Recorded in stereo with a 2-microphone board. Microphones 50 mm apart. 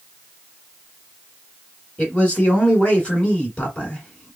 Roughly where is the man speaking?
Left.